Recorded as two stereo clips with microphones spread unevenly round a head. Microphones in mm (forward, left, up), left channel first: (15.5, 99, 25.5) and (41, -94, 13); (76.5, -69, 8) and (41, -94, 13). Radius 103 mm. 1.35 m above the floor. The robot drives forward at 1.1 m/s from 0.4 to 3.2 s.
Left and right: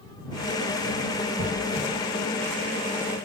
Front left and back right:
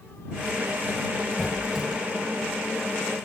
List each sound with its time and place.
1.4 s a squeak: 55° right, 7 m; by 1.9 s 60° right, 7 m